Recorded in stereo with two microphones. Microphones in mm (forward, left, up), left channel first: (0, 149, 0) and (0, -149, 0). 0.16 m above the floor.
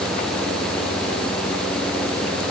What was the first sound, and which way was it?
Only background noise.